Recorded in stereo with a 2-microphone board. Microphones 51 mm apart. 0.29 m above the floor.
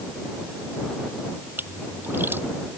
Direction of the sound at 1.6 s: 45° right (ahead or behind).